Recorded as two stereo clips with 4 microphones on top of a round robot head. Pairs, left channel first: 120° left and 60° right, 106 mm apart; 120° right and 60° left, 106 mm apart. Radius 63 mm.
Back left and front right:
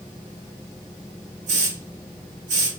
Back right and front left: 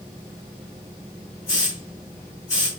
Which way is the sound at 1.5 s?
65° right.